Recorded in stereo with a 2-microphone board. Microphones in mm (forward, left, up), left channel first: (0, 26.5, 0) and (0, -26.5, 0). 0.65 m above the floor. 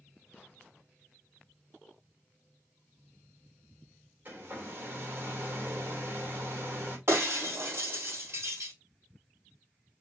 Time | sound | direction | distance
4.2 | a hair dryer | 35° right (ahead or behind) | 2.5 m
7.1 | breaking glass | 50° right (ahead or behind) | 3 m